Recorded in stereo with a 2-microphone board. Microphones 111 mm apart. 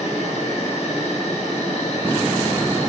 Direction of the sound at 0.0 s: 70° left (ahead or behind).